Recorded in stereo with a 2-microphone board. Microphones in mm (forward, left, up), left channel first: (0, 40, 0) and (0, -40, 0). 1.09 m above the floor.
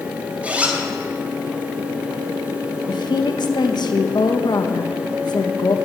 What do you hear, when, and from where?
0.4 s a zipper: 20° right (ahead or behind), 3 m
2.9 s a woman speaking: 60° left (ahead or behind), 1.4 m